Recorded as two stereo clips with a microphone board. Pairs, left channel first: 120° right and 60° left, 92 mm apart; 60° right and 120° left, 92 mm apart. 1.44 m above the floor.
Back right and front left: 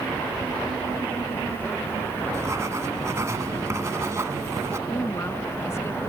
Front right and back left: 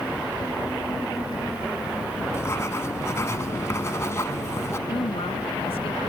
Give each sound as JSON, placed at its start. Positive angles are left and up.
{"t": 2.3, "sound": "writing", "azimuth_deg": 0}
{"t": 4.9, "sound": "a woman speaking", "azimuth_deg": -60}